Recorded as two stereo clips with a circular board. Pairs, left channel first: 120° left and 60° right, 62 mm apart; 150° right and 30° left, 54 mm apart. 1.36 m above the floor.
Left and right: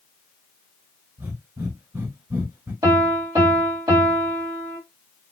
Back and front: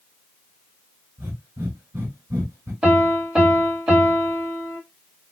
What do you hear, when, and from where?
1.2 s breathing: 10° right, 3 m
2.8 s a piano: 40° right, 2.5 m